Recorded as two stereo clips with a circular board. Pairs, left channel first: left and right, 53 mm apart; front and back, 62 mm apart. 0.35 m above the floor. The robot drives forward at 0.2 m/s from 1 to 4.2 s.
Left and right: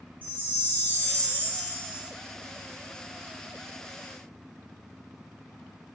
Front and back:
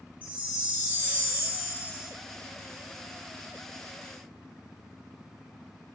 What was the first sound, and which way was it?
A chime, 130° left.